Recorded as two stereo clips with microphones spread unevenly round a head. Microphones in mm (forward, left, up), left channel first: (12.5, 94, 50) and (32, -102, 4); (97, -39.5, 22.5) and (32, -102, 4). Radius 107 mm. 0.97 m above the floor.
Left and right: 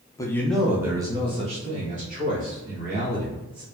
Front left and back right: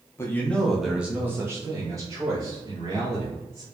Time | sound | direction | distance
0.2 | a man speaking | 15° left | 0.9 m